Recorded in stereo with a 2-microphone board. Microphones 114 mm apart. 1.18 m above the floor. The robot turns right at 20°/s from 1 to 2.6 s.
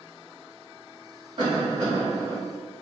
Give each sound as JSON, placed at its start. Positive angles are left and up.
{"t": 1.4, "sound": "a cough", "side_deg": -55, "distance_m": 1.6}